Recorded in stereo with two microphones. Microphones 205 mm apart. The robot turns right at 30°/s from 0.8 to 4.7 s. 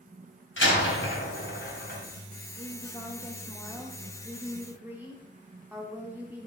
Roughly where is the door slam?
Left.